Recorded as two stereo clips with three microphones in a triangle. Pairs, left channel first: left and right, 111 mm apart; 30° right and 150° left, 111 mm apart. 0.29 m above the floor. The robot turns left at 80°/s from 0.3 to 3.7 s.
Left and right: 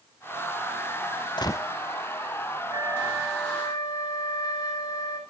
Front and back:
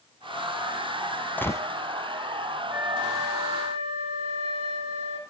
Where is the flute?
140° right, 6 m; by 5.2 s 140° left, 6 m.